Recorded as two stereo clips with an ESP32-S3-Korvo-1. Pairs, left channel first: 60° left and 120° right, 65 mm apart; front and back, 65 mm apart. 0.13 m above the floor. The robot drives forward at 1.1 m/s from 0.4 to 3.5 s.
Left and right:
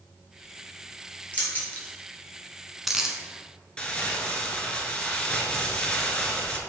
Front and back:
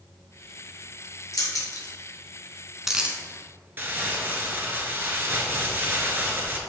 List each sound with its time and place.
1.3 s keys jangling: straight ahead, 1.9 m; by 3.2 s 175° right, 1.0 m
3.8 s crumpling: 130° left, 1.0 m